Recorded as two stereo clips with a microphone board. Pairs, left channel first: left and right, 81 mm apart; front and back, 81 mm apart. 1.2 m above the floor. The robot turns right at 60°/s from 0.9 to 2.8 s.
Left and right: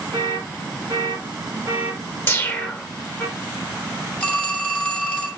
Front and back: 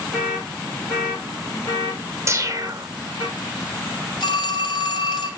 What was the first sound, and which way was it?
An alarm, 80° right.